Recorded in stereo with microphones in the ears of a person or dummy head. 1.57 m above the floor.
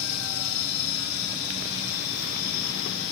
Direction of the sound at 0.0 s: 80° left.